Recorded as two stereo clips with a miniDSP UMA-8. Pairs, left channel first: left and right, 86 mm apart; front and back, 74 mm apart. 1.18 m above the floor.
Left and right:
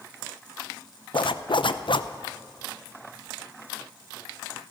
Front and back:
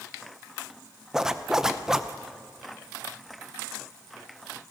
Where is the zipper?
100° left, 0.6 m.